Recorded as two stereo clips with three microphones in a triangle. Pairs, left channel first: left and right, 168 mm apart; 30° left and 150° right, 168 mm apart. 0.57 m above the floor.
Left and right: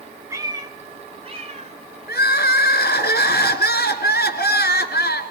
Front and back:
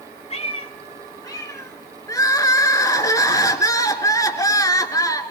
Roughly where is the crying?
Left.